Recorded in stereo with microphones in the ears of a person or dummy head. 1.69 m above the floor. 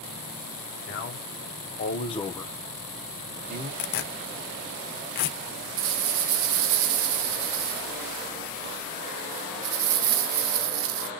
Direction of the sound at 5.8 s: 70° right (ahead or behind).